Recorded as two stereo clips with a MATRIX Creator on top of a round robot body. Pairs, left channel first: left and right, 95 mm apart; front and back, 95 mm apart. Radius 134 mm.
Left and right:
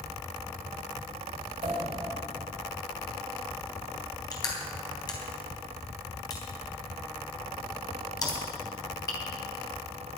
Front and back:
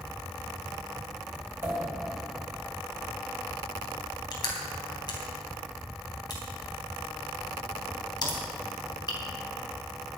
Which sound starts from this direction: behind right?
A pop, at 1.6 s.